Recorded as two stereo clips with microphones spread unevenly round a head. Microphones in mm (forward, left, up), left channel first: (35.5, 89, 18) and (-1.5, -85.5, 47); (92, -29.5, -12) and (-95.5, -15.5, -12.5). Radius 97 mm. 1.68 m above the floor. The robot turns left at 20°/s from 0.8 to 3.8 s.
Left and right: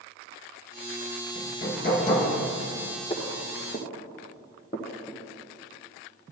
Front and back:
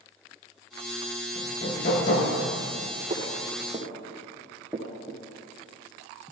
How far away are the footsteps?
About 2 m.